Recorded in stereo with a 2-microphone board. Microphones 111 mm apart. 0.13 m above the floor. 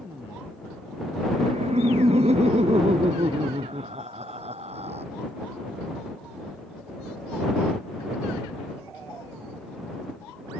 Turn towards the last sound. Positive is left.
turn(degrees=-70)  # may be behind; listen again after turning